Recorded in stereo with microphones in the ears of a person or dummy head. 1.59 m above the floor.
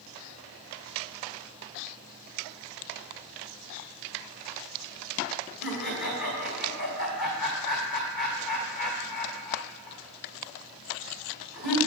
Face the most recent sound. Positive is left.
turn(degrees=45)  # may be behind; listen again after turning